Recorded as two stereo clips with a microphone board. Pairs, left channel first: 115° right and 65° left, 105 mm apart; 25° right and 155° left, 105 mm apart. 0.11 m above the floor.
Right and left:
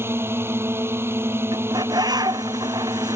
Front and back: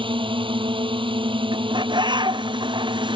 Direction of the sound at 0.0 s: 130° left.